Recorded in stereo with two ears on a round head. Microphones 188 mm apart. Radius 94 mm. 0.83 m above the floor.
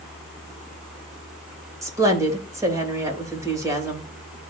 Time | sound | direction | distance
1.8 | a woman speaking | 15° right (ahead or behind) | 3 m